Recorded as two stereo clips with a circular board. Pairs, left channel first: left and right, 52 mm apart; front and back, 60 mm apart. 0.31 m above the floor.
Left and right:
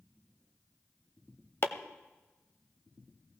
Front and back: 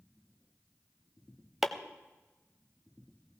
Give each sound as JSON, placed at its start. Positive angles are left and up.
{"t": 1.6, "sound": "chopping", "azimuth_deg": 95, "distance_m": 0.8}